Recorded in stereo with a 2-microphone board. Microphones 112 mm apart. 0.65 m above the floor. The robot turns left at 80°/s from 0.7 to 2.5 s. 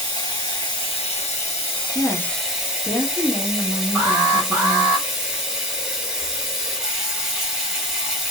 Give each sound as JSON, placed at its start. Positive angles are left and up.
{"t": 0.0, "sound": "running water", "azimuth_deg": 135, "distance_m": 1.4}
{"t": 1.9, "sound": "a woman speaking", "side_deg": 10, "distance_m": 1.0}
{"t": 4.0, "sound": "an alarm", "side_deg": -20, "distance_m": 1.8}